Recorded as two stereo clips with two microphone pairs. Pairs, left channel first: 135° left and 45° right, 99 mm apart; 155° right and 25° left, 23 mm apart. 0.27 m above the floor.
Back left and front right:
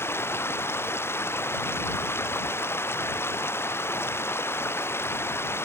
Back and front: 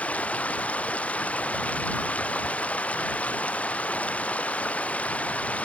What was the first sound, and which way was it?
Running water, 155° right.